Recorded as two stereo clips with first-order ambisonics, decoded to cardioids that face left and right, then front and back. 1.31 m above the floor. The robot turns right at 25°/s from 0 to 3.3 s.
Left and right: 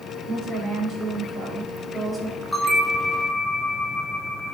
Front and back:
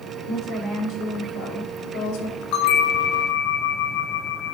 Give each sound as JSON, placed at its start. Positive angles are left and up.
{"t": 0.3, "sound": "a woman speaking", "azimuth_deg": -50, "distance_m": 3.5}
{"t": 2.5, "sound": "a bell", "azimuth_deg": 5, "distance_m": 2.0}